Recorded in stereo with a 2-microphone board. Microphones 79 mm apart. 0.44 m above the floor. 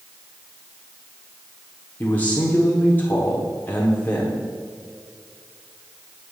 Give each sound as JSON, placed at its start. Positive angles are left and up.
{"t": 2.0, "sound": "a man speaking", "side_deg": 20, "distance_m": 0.9}